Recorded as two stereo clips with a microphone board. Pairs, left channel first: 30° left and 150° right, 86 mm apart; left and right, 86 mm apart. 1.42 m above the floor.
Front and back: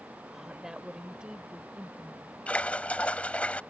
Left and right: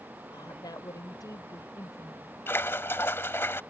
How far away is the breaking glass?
I don't hear breaking glass.